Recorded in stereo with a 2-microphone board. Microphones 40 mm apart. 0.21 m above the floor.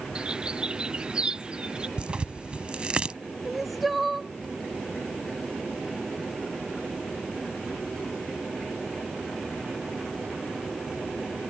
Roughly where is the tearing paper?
Right.